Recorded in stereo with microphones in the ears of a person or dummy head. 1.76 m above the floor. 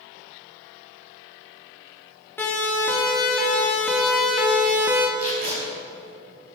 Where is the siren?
10° left (ahead or behind), 3 m; by 5.1 s 15° right (ahead or behind), 1.6 m.